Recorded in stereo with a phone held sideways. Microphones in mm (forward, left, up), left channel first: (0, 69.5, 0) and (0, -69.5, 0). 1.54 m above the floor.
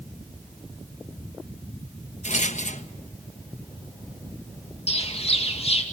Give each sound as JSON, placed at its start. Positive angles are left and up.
{"t": 2.2, "sound": "a rattle", "side_deg": 60, "distance_m": 1.2}
{"t": 4.9, "sound": "a bird", "side_deg": 45, "distance_m": 2.5}